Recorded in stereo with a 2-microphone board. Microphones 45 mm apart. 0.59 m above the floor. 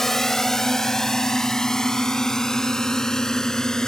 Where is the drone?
10° left (ahead or behind); by 3.9 s 15° left (ahead or behind).